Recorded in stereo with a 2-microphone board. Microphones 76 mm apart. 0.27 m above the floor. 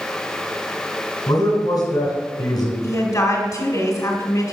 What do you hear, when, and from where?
1.3 s a man speaking: 65° left (ahead or behind), 3 m
2.8 s a woman speaking: 50° left (ahead or behind), 1.8 m